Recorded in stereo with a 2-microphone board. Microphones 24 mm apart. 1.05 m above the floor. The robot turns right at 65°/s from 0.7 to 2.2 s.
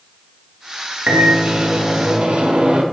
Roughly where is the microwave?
Behind right.